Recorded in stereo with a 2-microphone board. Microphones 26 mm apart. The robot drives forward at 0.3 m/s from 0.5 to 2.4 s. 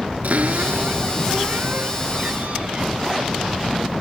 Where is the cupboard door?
85° right, 3 m; by 2.9 s 75° right (ahead or behind), 3 m.